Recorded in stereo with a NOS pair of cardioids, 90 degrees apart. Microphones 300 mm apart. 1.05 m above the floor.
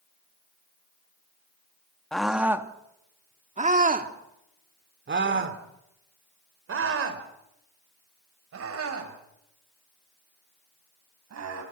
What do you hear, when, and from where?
2.1 s a scream: straight ahead, 2 m; by 11.6 s 55° right, 8.5 m